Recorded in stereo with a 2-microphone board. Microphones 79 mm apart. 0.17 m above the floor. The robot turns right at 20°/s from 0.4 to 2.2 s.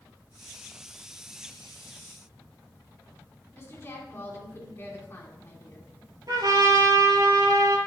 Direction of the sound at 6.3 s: 55° right (ahead or behind).